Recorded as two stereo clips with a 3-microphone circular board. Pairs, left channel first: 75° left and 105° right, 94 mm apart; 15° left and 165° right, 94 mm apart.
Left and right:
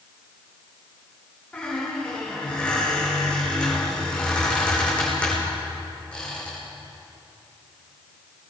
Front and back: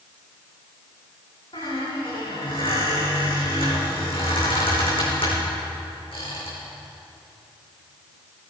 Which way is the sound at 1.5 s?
5° right.